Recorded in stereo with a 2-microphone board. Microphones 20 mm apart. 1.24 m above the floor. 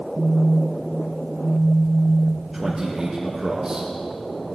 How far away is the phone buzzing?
About 4.5 m.